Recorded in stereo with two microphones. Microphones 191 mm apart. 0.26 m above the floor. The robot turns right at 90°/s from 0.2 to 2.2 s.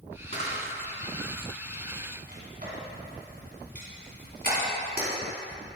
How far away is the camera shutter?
About 2 m.